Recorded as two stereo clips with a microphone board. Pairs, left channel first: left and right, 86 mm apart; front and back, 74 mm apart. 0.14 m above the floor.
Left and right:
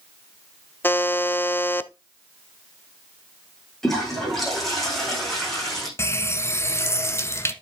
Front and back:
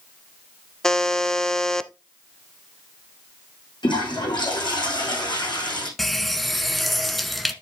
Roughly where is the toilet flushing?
Ahead.